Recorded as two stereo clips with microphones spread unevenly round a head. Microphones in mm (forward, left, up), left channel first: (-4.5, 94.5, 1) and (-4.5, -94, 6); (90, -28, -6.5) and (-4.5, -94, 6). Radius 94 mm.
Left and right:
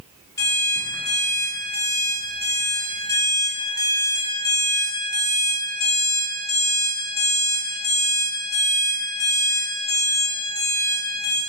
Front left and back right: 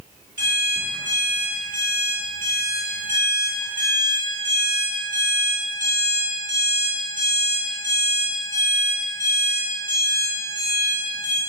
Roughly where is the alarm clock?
Behind.